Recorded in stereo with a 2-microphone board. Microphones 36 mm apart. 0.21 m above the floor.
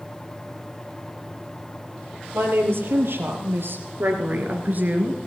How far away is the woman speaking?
About 4.5 m.